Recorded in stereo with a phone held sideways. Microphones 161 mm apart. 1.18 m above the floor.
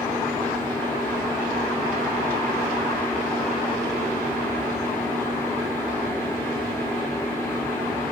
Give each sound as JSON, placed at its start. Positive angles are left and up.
{"t": 0.0, "sound": "a fan", "side_deg": 15, "distance_m": 1.6}